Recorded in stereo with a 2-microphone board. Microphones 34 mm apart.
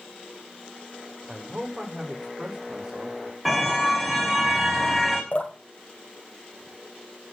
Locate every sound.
1.3 s a man speaking: 25° right (ahead or behind), 7 m; by 3.4 s 30° right (ahead or behind), 6 m
3.5 s a car horn: 5° right (ahead or behind), 4.5 m
5.3 s dripping: 35° left (ahead or behind), 3.5 m